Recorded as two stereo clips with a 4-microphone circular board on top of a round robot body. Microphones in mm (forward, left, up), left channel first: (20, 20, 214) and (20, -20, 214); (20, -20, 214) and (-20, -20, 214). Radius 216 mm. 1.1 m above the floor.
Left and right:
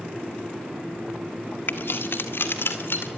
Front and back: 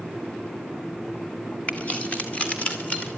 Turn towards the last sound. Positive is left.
turn(degrees=60)